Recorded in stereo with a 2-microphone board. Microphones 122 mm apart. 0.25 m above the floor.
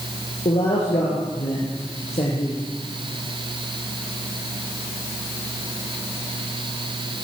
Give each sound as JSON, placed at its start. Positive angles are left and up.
{"t": 0.5, "sound": "a man speaking", "side_deg": 60, "distance_m": 6.5}